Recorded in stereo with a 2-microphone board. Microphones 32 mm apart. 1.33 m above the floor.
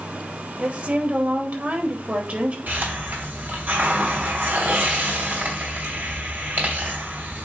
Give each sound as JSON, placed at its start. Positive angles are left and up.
{"t": 0.6, "sound": "a woman speaking", "side_deg": -55, "distance_m": 2.5}
{"t": 2.7, "sound": "a hiss", "side_deg": -75, "distance_m": 3.0}